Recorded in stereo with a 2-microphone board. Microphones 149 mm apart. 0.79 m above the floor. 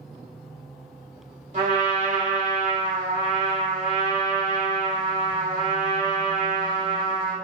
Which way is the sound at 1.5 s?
50° right (ahead or behind).